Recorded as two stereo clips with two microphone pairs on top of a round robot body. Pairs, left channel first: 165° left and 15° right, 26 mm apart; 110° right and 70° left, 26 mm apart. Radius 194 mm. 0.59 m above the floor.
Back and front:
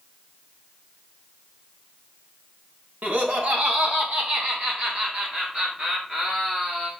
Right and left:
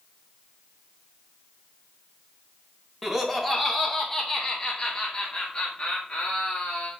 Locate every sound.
3.0 s laughter: 10° right, 2.5 m; by 6.9 s 55° right, 3 m